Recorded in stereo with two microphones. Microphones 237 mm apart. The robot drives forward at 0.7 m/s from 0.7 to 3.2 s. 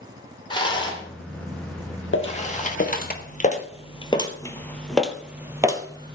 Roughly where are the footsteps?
Left.